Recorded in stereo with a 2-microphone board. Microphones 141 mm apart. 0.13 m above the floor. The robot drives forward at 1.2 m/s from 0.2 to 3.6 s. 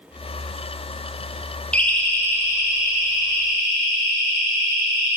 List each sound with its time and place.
1.7 s a siren: 10° left (ahead or behind), 3.5 m; by 5.2 s 40° left (ahead or behind), 7.5 m